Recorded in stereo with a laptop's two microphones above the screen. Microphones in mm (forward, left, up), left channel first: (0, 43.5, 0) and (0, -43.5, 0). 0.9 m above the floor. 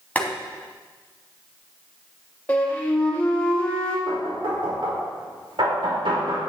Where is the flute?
20° left (ahead or behind), 1.9 m.